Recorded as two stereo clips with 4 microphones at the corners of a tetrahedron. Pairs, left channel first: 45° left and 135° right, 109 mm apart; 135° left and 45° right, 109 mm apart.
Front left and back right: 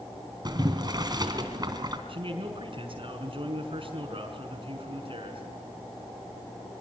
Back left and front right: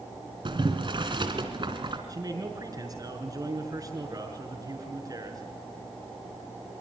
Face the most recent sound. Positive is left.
turn(degrees=-100)